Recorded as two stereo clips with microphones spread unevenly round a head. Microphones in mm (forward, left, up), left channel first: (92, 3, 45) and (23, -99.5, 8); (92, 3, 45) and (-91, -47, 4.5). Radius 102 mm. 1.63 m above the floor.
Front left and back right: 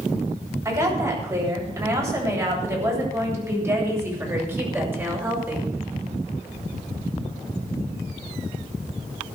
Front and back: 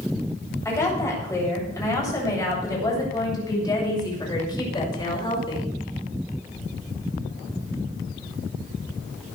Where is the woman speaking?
60° right, 8.5 m; by 5.7 s 50° right, 6 m.